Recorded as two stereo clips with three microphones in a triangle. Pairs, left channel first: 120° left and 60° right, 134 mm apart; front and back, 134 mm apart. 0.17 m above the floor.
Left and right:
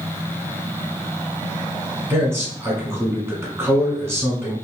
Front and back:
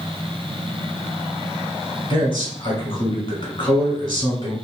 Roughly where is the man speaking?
Ahead.